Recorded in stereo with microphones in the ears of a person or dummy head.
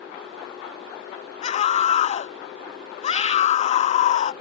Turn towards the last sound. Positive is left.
turn(degrees=40)  # may be behind; listen again after turning